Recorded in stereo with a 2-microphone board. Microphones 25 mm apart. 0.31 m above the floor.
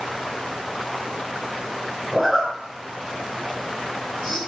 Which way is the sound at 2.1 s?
5° left (ahead or behind).